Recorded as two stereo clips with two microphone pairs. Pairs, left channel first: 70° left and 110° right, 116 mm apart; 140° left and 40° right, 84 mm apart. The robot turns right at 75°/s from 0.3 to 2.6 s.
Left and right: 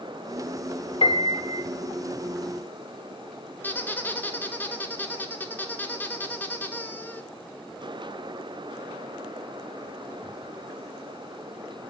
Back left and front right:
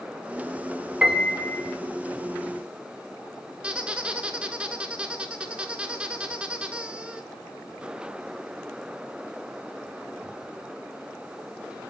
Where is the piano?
35° left, 0.5 m; by 1.6 s 85° left, 0.5 m.